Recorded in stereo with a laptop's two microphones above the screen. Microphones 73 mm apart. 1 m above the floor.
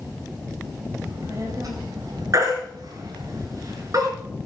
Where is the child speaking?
45° right (ahead or behind), 3.5 m; by 3.3 s 80° right, 3.5 m.